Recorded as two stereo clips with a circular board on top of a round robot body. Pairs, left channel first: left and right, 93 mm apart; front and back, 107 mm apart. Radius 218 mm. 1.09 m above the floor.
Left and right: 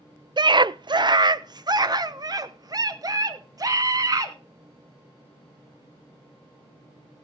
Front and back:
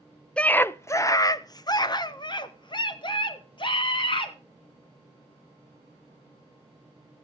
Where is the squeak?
No squeak in this recording.